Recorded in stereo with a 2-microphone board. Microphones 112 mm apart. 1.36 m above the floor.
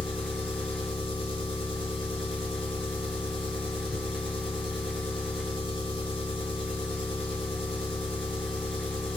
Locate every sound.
0.0 s an engine running: 55° left (ahead or behind), 0.8 m